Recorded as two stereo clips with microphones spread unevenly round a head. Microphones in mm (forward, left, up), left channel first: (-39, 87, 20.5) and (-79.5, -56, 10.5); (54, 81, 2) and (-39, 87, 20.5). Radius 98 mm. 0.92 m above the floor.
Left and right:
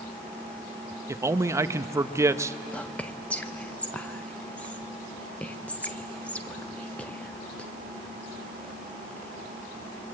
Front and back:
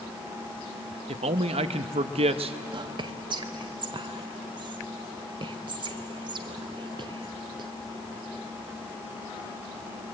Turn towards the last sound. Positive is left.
turn(degrees=155)